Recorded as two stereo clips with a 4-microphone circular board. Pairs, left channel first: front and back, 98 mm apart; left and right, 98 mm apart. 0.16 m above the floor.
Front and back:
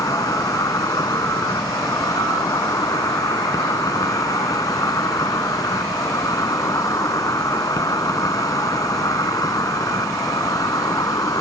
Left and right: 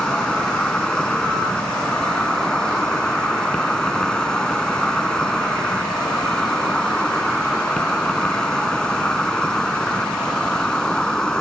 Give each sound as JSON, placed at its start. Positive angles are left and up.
{"t": 0.0, "sound": "an insect", "azimuth_deg": 15}